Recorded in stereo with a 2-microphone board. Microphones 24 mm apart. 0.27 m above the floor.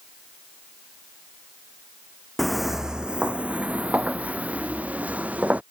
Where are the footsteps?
Centre (ahead or behind); by 5.6 s 80° right.